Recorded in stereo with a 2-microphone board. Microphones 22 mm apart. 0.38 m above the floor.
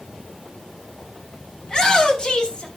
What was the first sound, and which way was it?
A shout, 30° left (ahead or behind).